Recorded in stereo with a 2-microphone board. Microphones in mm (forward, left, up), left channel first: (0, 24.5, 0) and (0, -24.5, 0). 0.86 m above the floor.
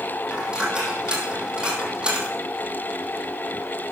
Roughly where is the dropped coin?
Centre.